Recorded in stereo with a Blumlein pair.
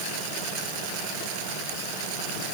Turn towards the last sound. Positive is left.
No sound to turn to.